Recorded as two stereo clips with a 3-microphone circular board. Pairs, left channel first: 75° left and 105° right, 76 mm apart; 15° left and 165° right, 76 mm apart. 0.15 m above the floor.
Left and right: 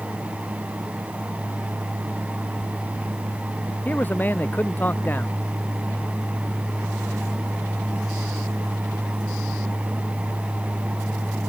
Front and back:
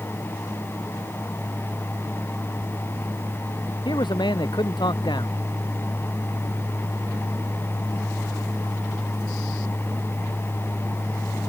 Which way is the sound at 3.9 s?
10° left.